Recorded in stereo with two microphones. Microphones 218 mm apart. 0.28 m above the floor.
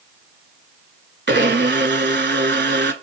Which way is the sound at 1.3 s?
55° right (ahead or behind).